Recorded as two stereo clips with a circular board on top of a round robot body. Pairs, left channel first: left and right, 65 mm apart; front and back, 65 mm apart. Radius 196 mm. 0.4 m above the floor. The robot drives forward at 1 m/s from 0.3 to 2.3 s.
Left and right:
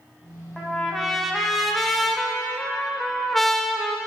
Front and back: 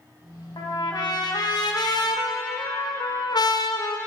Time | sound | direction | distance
0.6 | a trumpet | straight ahead | 3 m